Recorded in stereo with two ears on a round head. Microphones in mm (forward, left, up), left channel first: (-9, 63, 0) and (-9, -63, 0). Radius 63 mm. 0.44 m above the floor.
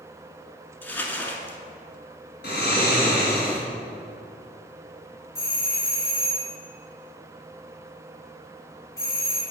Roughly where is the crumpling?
Centre.